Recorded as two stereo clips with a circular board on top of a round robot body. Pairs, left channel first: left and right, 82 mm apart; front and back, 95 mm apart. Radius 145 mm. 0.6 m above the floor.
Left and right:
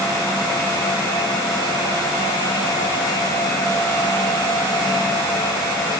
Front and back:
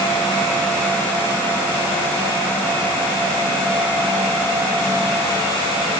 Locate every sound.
Only background noise.